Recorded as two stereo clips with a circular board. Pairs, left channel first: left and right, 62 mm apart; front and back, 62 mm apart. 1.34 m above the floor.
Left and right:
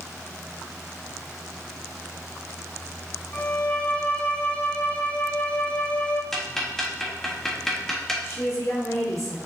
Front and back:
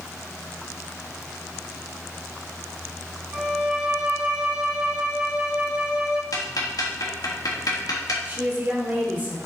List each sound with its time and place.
3.3 s a violin: 125° left, 0.8 m
6.3 s ticking: 5° left, 1.5 m
8.2 s a woman speaking: 120° left, 3.5 m